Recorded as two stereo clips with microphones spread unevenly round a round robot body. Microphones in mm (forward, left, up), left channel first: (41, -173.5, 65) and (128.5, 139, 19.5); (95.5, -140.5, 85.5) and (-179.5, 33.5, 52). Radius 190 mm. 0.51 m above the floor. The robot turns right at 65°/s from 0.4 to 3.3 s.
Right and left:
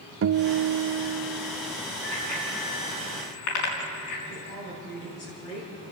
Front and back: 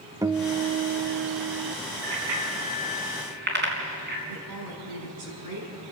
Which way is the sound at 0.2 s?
75° left.